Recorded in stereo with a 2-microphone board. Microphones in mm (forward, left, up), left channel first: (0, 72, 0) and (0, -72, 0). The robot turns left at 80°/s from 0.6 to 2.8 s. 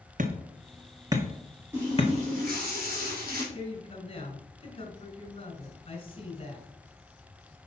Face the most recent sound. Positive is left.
turn(degrees=40)  # may be behind; listen again after turning